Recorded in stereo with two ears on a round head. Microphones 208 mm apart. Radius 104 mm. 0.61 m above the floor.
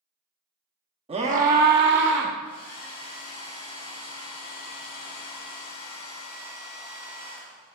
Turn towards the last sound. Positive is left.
turn(degrees=50)  # may be behind; listen again after turning